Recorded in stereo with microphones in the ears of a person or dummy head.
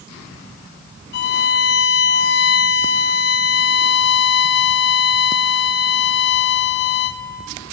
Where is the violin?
55° left (ahead or behind), 1.4 m.